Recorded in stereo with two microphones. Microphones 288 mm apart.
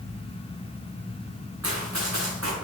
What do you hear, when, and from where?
1.6 s running footsteps: 60° right (ahead or behind), 3 m